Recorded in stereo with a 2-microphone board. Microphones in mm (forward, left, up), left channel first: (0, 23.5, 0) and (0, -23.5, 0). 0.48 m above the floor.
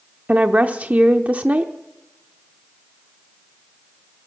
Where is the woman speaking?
30° right (ahead or behind), 0.8 m.